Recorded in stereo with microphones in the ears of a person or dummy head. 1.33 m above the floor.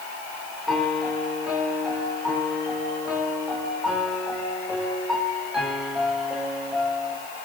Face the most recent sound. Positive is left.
turn(degrees=0)  # may be behind; listen again after turning